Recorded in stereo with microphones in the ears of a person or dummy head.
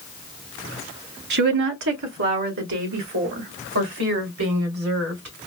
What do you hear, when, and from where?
1.3 s a woman speaking: 60° right (ahead or behind), 0.6 m; by 5.3 s 85° right, 2.5 m